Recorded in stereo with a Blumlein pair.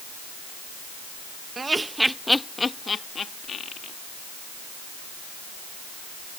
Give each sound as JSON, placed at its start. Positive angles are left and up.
{"t": 1.6, "sound": "laughter", "azimuth_deg": -15}